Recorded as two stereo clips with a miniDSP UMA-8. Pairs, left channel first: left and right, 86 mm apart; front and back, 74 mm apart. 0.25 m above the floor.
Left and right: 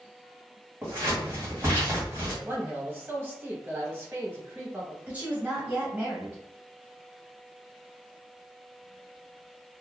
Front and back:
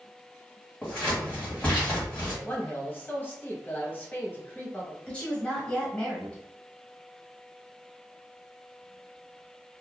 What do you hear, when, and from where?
0.8 s scissors: 60° right, 1.7 m
2.4 s a man speaking: 50° right, 1.1 m
5.1 s a woman speaking: 55° right, 1.0 m